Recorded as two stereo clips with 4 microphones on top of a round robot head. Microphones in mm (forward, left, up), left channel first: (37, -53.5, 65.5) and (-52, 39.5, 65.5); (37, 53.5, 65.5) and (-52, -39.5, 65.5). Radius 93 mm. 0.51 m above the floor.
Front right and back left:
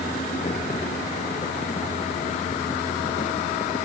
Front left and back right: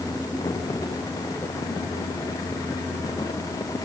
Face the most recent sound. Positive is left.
No sound to turn to.